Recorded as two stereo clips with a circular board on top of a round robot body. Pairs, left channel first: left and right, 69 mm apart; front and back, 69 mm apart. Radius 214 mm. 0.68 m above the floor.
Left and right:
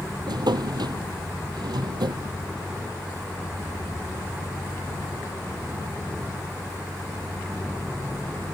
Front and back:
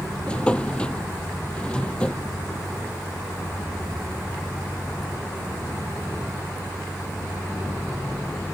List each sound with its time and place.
0.3 s a drawer: 75° right